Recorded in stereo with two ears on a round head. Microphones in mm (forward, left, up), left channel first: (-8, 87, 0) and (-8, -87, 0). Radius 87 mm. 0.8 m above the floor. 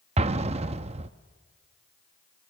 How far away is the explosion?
About 0.7 m.